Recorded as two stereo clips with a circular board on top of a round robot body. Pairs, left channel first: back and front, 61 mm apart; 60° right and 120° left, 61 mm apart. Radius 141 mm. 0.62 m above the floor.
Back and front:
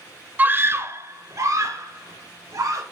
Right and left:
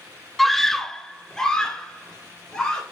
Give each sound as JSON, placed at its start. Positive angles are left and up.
{"t": 0.4, "sound": "a scream", "azimuth_deg": 25, "distance_m": 1.0}